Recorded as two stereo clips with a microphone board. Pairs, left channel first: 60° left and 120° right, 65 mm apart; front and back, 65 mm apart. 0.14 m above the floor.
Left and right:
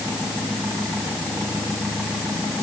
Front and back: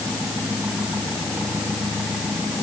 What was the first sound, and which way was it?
Only background noise.